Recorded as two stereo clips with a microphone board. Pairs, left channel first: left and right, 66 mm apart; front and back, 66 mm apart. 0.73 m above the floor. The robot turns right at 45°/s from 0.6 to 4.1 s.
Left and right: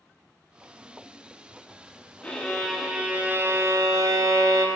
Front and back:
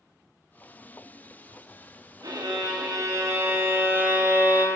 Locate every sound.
2.2 s a violin: 160° left, 0.6 m; by 4.7 s 115° right, 0.6 m